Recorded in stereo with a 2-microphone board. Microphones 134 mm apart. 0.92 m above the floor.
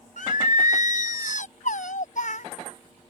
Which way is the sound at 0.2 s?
75° left (ahead or behind).